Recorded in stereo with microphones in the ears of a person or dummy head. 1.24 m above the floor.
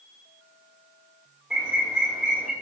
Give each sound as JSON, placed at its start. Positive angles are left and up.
{"t": 1.5, "sound": "a bird", "side_deg": -5, "distance_m": 2.0}